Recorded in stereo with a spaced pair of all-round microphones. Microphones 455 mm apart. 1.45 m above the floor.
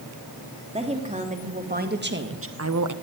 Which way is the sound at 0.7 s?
15° right (ahead or behind).